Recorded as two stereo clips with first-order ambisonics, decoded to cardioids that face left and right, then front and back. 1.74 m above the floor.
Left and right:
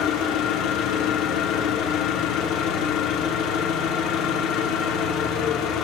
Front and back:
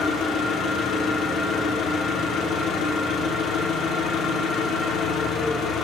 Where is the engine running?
55° left, 4 m.